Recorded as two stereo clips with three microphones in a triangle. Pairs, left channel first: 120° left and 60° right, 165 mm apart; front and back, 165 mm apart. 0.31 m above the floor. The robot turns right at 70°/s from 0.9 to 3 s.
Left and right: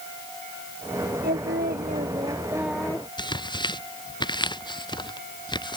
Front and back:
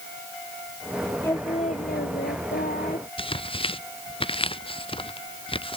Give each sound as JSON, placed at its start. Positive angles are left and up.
{"t": 1.2, "sound": "singing", "azimuth_deg": -75}
{"t": 3.2, "sound": "tearing paper", "azimuth_deg": 55}